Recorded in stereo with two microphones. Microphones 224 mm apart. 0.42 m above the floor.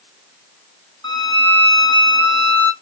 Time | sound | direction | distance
1.0 | a violin | 20° left (ahead or behind) | 1.4 m